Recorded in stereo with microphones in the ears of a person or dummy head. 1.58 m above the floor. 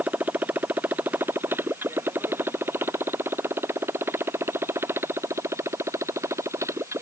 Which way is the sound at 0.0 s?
10° right (ahead or behind).